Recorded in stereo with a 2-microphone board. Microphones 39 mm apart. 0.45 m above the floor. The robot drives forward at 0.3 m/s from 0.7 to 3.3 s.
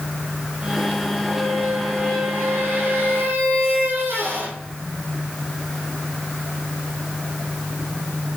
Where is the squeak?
55° right (ahead or behind), 3 m; by 4.6 s 65° right (ahead or behind), 3 m.